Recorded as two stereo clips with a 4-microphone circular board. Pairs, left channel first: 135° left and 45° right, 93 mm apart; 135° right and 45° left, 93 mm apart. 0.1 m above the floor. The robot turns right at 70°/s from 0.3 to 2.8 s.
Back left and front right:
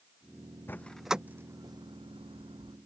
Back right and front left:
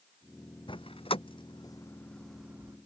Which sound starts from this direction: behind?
A door slam, at 0.7 s.